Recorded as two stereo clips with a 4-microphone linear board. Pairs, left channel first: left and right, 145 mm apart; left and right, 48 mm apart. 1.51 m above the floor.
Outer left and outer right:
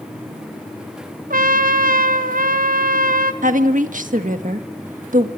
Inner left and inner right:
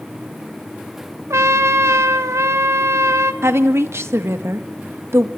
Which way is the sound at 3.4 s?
65° right (ahead or behind).